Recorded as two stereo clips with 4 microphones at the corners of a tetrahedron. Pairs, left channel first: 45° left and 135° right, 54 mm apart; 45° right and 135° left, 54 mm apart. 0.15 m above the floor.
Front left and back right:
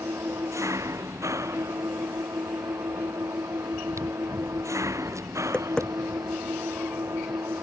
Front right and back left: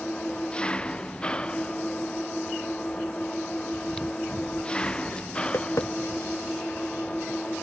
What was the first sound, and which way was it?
An engine running, 115° right.